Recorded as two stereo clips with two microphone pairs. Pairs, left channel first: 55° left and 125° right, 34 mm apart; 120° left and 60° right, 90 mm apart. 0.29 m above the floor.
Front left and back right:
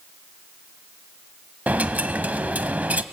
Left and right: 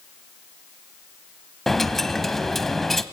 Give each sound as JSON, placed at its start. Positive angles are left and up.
{"t": 1.7, "sound": "a dropped coin", "azimuth_deg": -155, "distance_m": 0.8}